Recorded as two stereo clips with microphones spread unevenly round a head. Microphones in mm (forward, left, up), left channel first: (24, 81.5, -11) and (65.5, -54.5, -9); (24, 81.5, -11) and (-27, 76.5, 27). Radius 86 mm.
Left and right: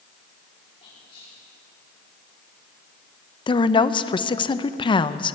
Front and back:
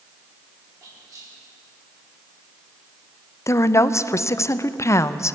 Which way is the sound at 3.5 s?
50° left.